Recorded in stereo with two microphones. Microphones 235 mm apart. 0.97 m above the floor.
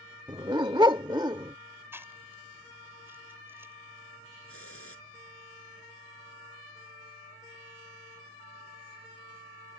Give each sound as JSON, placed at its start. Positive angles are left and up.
{"t": 0.3, "sound": "a dog barking", "side_deg": -20}
{"t": 1.9, "sound": "chewing", "side_deg": -10}
{"t": 4.5, "sound": "a hiss", "side_deg": 65}